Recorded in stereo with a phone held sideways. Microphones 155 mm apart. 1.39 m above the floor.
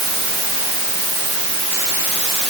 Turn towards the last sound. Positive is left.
No sound to turn to.